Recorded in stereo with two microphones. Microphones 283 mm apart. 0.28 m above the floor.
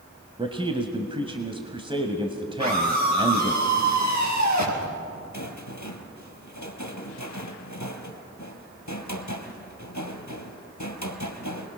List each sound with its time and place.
0.4 s a man speaking: 20° right (ahead or behind), 1.4 m
2.6 s a scream: 75° right (ahead or behind), 5.5 m
5.3 s a rattle: 85° left, 2 m